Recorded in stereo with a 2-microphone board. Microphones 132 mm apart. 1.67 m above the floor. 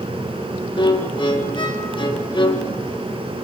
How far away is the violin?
About 2.5 m.